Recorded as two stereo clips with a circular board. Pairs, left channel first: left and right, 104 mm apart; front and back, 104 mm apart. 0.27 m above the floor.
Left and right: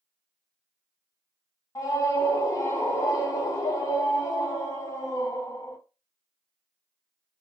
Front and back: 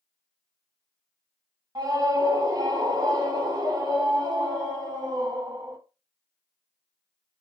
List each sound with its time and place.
1.8 s a scream: 140° left, 1.5 m